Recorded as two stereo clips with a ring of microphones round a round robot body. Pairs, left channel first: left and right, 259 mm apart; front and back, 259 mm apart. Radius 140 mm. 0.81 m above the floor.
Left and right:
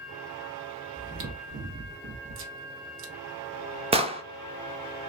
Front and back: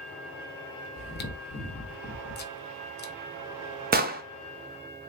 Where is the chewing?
50° right, 0.7 m.